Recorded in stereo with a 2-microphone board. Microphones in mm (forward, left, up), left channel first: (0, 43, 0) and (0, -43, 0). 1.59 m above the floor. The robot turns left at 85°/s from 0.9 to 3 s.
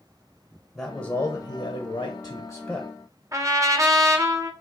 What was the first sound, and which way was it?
A man speaking, 155° left.